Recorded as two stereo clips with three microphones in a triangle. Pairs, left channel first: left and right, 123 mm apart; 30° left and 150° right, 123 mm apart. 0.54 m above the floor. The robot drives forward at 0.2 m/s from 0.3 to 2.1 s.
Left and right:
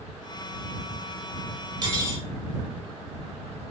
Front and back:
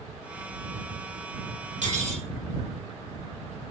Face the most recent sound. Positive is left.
turn(degrees=-145)